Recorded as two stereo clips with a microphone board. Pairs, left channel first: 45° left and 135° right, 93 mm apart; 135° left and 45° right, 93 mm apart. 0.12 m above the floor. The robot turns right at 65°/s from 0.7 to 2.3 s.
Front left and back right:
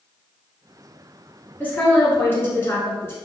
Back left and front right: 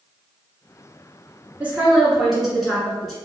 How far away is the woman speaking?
About 1.2 m.